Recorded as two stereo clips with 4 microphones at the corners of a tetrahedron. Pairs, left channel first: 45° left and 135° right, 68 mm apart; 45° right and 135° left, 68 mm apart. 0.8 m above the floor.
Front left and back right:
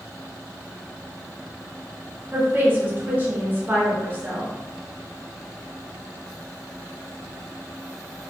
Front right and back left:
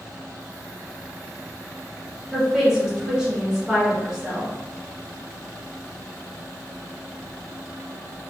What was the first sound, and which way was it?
A woman speaking, 150° right.